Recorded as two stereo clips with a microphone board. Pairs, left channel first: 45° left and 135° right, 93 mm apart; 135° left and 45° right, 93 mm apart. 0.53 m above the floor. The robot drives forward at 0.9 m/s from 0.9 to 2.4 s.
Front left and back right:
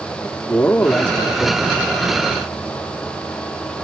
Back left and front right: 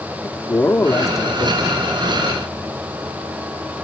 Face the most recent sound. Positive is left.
turn(degrees=160)